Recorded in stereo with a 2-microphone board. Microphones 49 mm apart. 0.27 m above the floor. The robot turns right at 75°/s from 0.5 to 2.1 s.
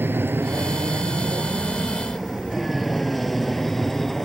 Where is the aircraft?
50° right (ahead or behind); by 4.2 s 5° left (ahead or behind).